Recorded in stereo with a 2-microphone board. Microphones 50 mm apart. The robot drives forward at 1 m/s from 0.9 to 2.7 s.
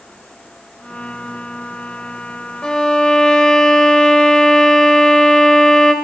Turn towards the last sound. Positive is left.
turn(degrees=15)  # may be behind; listen again after turning